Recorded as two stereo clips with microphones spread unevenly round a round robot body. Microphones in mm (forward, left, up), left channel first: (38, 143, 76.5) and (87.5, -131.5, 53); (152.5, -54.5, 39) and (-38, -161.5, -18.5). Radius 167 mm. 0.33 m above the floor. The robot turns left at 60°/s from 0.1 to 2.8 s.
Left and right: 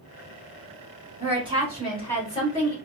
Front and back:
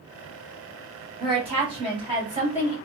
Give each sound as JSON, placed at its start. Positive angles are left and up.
{"t": 1.2, "sound": "a woman speaking", "azimuth_deg": -120, "distance_m": 1.5}